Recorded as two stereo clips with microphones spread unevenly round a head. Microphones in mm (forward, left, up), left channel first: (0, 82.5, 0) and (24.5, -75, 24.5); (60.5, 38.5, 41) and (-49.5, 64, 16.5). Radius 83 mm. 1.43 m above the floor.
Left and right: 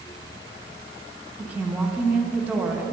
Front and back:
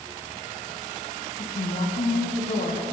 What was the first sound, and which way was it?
A woman speaking, straight ahead.